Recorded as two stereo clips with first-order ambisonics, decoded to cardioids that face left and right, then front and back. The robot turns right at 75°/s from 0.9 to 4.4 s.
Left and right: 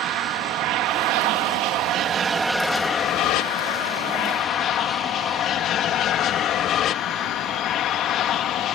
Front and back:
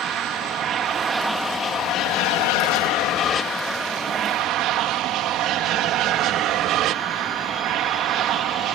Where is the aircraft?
125° right; by 8.8 s 140° left.